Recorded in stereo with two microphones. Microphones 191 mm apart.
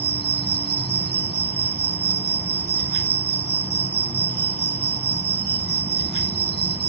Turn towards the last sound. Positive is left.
turn(degrees=-65)  # may be behind; listen again after turning